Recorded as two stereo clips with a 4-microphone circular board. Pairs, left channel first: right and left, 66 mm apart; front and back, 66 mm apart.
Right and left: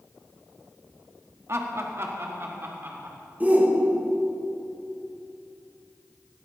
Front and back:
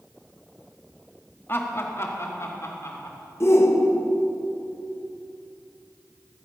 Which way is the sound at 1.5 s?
50° left.